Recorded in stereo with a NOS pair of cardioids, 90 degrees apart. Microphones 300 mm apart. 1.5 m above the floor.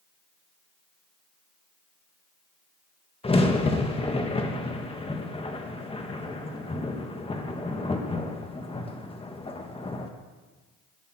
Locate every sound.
3.2 s a crack: 20° left, 1.8 m